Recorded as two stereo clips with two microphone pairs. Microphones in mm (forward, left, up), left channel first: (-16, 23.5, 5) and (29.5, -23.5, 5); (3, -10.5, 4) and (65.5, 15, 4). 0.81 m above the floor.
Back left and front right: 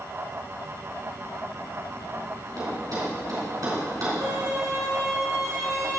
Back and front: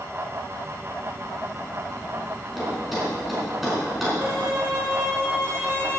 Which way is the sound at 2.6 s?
65° right.